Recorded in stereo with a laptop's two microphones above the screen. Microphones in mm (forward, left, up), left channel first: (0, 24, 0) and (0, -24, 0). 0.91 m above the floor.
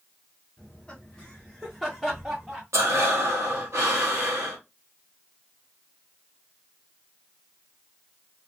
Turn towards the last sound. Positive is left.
turn(degrees=-70)  # may be behind; listen again after turning